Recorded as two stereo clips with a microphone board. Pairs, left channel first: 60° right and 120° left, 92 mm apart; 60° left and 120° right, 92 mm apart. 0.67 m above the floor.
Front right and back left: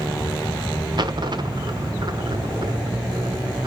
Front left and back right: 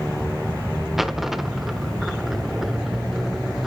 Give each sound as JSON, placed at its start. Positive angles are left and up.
{"t": 1.0, "sound": "a dropped coin", "azimuth_deg": 155, "distance_m": 0.9}